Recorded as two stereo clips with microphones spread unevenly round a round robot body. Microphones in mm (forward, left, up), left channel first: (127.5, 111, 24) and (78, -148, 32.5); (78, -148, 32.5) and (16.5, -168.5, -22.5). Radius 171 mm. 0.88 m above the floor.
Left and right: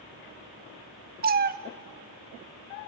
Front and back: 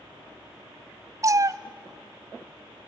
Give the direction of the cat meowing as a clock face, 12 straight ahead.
2 o'clock.